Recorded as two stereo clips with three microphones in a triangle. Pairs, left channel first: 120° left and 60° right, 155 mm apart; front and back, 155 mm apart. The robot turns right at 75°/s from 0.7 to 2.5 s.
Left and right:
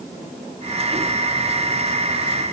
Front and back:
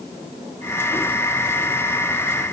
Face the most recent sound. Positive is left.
No sound to turn to.